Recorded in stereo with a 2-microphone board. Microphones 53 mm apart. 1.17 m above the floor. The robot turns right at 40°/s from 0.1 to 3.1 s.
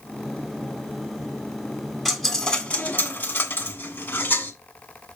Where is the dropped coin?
Straight ahead, 1.4 m; by 4.5 s 45° left, 1.4 m.